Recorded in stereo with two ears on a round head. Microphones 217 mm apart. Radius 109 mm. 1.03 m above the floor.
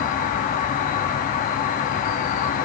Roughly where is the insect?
Left.